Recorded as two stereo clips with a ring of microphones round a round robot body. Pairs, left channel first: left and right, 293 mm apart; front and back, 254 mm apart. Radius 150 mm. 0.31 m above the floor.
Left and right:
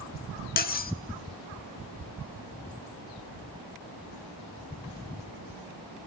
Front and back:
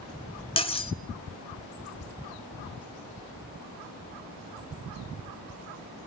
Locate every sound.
0.6 s cutlery clinking: 55° left, 0.8 m